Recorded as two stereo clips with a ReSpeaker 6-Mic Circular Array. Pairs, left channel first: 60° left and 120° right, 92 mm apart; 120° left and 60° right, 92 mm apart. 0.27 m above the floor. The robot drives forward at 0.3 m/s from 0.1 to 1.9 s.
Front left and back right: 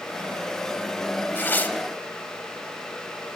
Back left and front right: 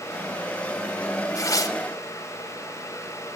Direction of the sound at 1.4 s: 110° left.